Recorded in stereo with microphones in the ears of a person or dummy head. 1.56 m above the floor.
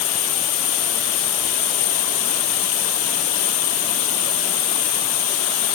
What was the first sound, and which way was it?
An insect, centre (ahead or behind).